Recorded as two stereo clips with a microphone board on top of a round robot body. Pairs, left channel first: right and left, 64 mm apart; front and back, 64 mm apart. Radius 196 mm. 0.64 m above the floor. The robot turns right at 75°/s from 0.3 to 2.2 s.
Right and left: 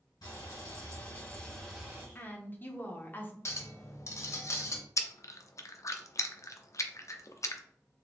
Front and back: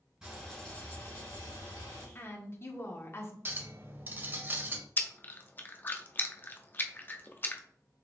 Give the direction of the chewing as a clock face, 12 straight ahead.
2 o'clock.